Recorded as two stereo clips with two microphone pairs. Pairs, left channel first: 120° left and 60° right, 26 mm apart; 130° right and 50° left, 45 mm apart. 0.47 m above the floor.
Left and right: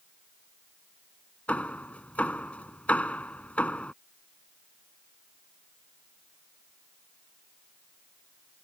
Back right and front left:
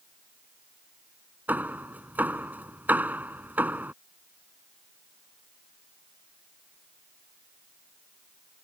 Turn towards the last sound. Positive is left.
turn(degrees=95)